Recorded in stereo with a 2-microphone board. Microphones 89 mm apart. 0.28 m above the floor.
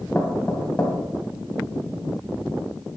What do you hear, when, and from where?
0.1 s knocking: 15° left (ahead or behind), 1.6 m